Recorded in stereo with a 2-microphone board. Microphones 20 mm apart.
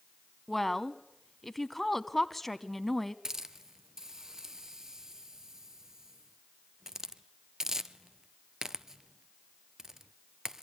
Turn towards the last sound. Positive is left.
turn(degrees=-30)  # may be behind; listen again after turning